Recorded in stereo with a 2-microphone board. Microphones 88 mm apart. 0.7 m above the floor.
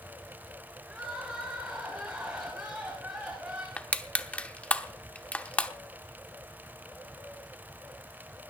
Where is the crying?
15° right (ahead or behind), 8 m.